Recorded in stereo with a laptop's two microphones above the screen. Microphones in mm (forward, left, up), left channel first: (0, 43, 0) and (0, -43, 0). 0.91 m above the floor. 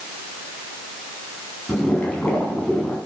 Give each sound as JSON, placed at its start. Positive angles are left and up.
{"t": 1.7, "sound": "boiling", "side_deg": 15, "distance_m": 4.5}